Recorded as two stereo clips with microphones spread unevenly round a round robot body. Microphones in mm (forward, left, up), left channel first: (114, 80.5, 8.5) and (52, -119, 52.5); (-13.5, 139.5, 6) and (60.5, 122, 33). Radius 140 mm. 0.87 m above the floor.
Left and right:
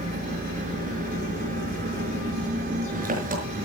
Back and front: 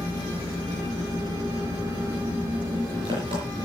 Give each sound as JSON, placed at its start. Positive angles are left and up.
{"t": 0.0, "sound": "an engine running", "azimuth_deg": -60, "distance_m": 5.5}